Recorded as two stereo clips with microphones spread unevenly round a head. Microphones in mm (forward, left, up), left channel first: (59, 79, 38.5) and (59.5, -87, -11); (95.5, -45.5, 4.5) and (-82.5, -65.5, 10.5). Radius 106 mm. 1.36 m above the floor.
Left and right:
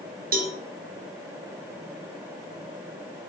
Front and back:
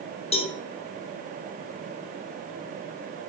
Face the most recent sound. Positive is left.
turn(degrees=-50)